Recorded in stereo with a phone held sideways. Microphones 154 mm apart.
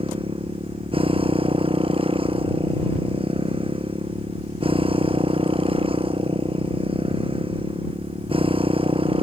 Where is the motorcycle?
40° right (ahead or behind).